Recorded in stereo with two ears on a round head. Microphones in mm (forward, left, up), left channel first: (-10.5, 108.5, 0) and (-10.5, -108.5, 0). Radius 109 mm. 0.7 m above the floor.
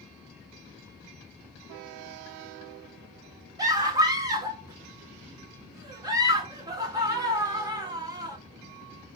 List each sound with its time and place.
3.6 s a scream: 15° right (ahead or behind), 1.1 m